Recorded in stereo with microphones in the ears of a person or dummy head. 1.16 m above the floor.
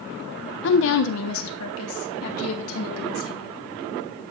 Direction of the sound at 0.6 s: 60° left (ahead or behind).